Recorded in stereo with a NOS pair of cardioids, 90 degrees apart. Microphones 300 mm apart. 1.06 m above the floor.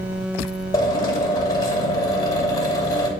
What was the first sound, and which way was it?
A drill, 10° left.